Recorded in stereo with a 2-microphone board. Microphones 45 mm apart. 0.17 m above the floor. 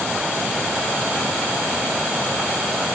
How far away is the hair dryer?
No hair dryer in this recording.